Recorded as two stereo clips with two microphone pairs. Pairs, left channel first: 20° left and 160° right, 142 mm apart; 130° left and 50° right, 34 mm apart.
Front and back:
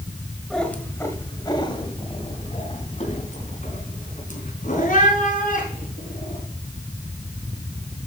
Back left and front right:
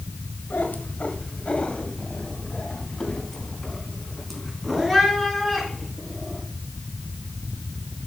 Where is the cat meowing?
110° left, 1.8 m; by 6.4 s 40° left, 5.5 m.